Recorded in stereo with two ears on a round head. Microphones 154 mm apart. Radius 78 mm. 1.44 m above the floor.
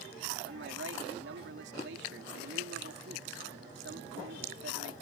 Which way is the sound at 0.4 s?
75° right (ahead or behind).